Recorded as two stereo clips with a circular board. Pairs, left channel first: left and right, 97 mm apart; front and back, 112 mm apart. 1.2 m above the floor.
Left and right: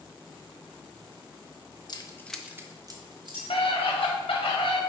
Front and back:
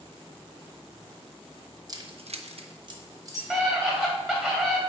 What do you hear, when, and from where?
1.9 s keys jangling: 125° left, 0.7 m; by 4.1 s 115° right, 2.5 m
3.5 s a scream: 85° left, 2 m